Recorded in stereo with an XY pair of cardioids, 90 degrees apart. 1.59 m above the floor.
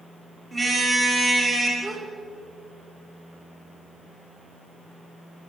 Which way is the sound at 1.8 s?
25° right.